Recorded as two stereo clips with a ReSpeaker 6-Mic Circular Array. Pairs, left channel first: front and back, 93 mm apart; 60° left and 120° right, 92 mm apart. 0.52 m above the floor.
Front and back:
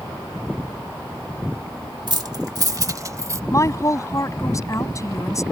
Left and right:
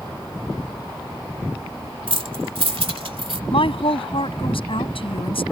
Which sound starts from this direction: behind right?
Keys jangling, at 2.1 s.